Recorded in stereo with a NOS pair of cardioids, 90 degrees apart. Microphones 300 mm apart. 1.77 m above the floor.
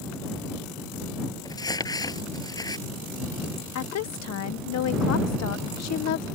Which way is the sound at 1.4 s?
15° left.